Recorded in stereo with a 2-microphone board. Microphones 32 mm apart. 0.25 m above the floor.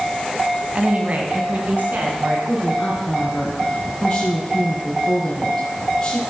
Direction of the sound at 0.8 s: 45° right (ahead or behind).